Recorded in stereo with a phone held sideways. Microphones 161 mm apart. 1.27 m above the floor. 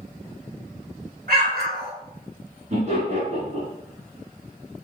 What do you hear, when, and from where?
1.3 s an explosion: 80° right, 2.5 m
2.7 s laughter: 55° right (ahead or behind), 2.5 m